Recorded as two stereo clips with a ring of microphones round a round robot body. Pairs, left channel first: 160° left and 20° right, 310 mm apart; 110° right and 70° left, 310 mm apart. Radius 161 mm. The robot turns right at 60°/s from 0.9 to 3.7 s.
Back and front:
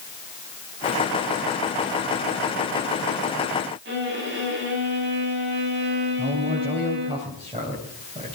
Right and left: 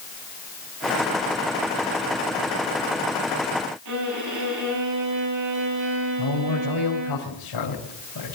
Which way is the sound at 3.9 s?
35° left.